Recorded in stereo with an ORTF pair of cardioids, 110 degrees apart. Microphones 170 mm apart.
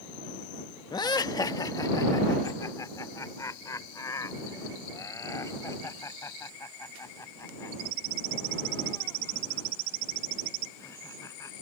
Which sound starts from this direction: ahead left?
Laughter, at 0.9 s.